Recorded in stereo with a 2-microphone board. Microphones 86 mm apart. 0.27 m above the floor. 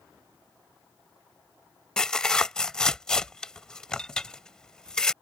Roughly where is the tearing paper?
Centre.